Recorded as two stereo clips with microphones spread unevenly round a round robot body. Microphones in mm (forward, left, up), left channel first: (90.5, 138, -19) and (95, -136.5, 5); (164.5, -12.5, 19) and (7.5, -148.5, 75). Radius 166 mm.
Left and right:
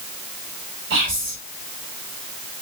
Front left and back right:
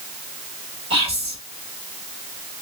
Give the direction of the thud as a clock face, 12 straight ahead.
No thud in this recording.